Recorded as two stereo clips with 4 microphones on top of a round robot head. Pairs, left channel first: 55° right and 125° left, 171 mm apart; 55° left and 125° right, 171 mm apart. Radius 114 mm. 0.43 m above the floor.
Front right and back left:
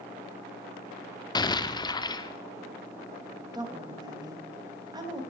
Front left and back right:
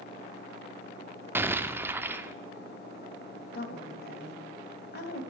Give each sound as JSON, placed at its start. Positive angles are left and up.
{"t": 1.4, "sound": "an explosion", "azimuth_deg": -65, "distance_m": 0.8}
{"t": 3.5, "sound": "a woman speaking", "azimuth_deg": 60, "distance_m": 2.5}